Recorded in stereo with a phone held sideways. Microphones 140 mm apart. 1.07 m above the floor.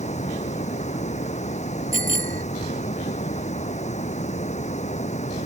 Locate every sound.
0.0 s running water: 55° left (ahead or behind)
1.9 s a bicycle bell: 75° right (ahead or behind)